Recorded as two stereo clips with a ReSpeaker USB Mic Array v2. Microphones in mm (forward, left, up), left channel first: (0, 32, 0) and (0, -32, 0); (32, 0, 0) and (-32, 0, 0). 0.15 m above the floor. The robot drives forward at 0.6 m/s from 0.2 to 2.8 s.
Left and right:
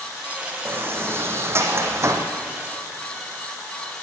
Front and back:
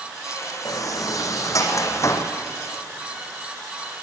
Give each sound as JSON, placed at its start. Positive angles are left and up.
{"t": 0.7, "sound": "a sliding door", "azimuth_deg": -35, "distance_m": 3.5}